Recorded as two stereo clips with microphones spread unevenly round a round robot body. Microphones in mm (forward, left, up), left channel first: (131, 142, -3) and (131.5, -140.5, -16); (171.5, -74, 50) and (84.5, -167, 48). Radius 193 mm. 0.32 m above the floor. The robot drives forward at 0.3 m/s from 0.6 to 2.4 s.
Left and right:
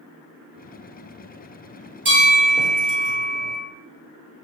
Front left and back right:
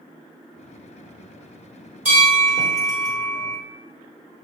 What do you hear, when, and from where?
2.0 s a bell: 175° right, 0.6 m